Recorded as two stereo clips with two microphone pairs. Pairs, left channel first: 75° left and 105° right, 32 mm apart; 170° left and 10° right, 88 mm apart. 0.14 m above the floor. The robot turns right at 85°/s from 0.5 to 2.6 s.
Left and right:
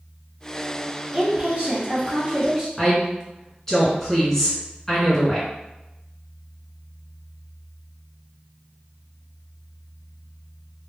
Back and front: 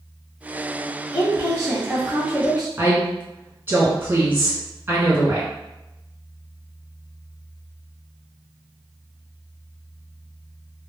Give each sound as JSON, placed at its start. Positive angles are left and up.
{"t": 1.1, "sound": "a woman speaking", "azimuth_deg": -175, "distance_m": 1.7}
{"t": 2.8, "sound": "a woman speaking", "azimuth_deg": 5, "distance_m": 1.5}